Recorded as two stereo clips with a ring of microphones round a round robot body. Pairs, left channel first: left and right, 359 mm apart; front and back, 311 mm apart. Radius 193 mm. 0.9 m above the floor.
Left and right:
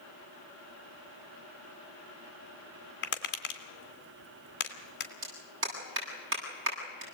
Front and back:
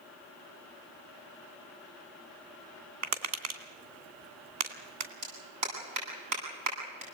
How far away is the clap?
About 9 m.